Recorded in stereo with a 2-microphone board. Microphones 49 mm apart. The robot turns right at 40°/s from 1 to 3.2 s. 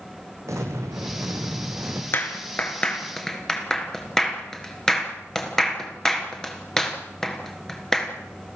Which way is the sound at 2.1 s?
50° left (ahead or behind).